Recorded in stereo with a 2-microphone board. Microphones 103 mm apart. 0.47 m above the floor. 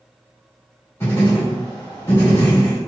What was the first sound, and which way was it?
Writing, 20° left (ahead or behind).